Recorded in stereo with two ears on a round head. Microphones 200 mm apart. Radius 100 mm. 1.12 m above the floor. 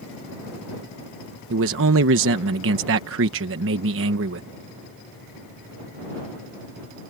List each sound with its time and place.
1.5 s a man speaking: 60° right (ahead or behind)